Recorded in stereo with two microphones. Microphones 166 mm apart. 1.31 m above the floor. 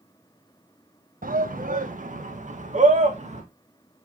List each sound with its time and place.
1.2 s a shout: 55° right (ahead or behind), 1.3 m; by 3.4 s 45° right (ahead or behind), 2.5 m